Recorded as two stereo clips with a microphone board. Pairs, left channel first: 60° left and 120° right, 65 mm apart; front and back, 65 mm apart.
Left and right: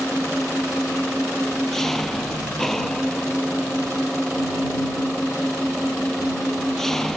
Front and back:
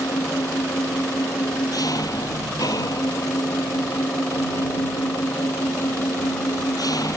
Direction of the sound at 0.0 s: 25° right.